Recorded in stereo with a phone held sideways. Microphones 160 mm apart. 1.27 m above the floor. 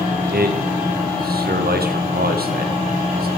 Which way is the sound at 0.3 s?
75° right (ahead or behind).